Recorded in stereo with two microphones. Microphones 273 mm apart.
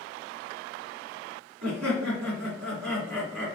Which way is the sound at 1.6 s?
70° right (ahead or behind).